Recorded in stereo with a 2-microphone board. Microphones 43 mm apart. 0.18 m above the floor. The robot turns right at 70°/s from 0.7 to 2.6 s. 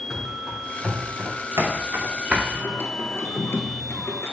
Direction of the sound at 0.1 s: Centre (ahead or behind).